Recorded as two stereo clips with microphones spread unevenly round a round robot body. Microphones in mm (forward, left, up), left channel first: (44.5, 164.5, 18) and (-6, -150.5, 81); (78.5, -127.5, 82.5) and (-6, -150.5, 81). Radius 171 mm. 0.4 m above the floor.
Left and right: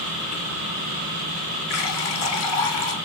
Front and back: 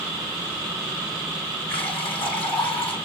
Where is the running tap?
35° left, 4.5 m.